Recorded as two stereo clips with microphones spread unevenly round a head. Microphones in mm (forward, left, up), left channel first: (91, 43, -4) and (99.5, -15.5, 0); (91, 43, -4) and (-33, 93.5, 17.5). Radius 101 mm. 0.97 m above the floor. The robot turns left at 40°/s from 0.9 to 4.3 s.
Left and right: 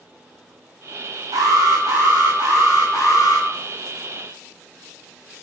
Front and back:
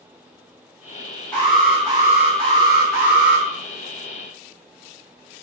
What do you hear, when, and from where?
1.3 s an alarm: 105° right, 7 m; by 3.5 s 170° left, 7 m